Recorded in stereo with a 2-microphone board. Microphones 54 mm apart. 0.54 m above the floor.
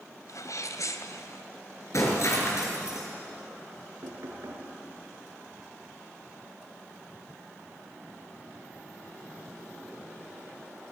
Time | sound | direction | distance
0.3 | a sneeze | 75° left (ahead or behind) | 2.5 m
1.9 | breaking glass | 60° left (ahead or behind) | 6 m
4.0 | knocking | 60° right (ahead or behind) | 5.5 m